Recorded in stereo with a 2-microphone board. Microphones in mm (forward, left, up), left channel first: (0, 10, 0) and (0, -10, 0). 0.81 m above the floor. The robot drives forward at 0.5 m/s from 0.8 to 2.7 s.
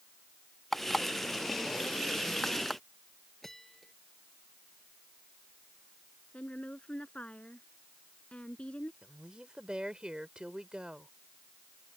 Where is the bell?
15° left (ahead or behind).